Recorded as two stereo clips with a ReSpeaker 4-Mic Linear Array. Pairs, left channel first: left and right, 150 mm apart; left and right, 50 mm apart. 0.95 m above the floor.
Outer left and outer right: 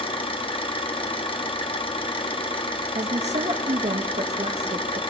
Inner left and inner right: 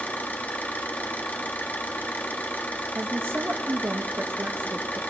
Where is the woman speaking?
50° right (ahead or behind), 0.7 m.